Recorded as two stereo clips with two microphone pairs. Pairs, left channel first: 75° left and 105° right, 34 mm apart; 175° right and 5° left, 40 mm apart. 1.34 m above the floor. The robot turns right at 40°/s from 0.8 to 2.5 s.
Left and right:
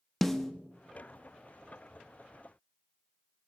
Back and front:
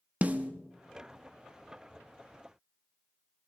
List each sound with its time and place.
0.2 s a snare drum: straight ahead, 0.9 m